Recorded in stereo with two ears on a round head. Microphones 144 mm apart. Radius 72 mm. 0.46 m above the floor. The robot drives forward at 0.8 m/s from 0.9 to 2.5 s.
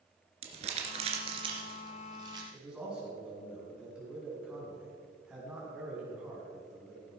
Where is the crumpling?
40° right (ahead or behind), 2 m; by 2.4 s 25° right (ahead or behind), 3 m.